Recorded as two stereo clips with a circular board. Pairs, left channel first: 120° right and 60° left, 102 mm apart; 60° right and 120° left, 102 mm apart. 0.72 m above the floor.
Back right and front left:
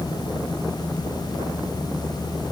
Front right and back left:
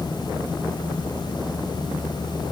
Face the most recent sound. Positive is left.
No sound to turn to.